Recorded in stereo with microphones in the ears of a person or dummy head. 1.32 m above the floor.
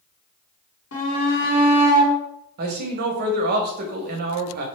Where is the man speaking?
55° right (ahead or behind), 0.7 m.